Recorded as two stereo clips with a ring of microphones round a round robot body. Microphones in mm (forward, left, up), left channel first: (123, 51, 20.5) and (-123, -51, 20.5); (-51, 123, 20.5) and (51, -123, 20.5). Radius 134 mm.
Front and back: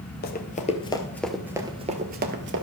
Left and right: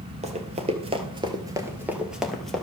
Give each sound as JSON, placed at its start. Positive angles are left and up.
{"t": 0.2, "sound": "running footsteps", "azimuth_deg": -10, "distance_m": 1.2}